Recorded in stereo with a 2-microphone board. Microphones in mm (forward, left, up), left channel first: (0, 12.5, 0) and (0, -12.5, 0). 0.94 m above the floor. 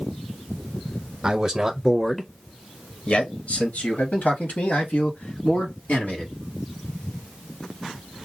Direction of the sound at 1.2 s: 30° right (ahead or behind).